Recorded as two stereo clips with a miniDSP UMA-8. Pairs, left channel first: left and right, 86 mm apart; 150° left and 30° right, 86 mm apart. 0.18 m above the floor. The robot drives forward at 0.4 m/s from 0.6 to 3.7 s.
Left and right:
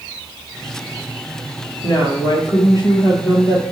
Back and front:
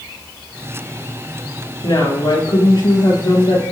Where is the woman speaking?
120° left, 3.5 m; by 3.6 s 130° left, 4 m.